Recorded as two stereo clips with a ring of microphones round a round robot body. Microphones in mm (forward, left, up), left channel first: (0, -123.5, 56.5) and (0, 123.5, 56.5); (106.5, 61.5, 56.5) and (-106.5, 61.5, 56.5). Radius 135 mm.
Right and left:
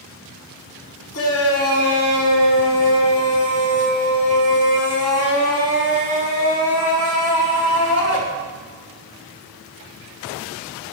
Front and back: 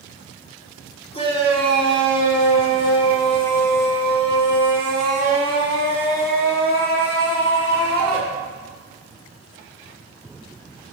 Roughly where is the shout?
Ahead right.